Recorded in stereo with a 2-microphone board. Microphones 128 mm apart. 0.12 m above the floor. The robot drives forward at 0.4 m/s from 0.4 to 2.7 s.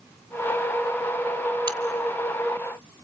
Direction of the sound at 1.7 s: 40° right (ahead or behind).